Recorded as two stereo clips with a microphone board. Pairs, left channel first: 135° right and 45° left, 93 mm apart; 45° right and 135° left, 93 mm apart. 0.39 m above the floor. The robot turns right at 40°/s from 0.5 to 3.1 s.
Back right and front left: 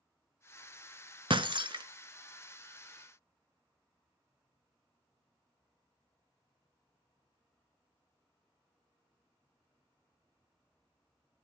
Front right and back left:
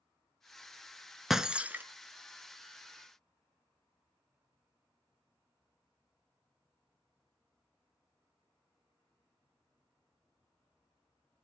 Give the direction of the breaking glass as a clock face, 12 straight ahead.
10 o'clock.